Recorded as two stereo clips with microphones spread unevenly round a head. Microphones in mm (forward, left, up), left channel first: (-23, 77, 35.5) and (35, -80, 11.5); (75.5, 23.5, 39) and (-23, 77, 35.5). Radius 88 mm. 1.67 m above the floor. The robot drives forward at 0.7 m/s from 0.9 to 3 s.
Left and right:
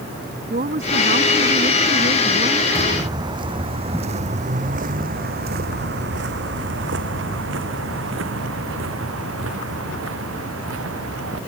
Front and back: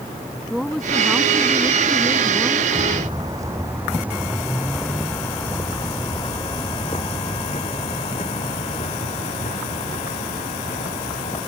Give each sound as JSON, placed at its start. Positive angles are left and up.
{"t": 0.5, "sound": "a woman speaking", "azimuth_deg": -120}
{"t": 2.8, "sound": "footsteps", "azimuth_deg": -145}